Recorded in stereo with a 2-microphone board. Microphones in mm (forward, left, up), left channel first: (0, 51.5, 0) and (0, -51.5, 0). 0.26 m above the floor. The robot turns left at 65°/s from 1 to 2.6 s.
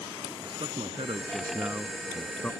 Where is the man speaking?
105° right; by 2.5 s 155° left.